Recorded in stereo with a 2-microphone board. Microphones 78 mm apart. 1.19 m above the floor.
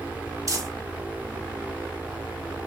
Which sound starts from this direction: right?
Crumpling, at 0.5 s.